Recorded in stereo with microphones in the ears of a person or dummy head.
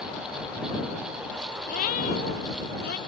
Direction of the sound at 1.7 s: 45° left (ahead or behind).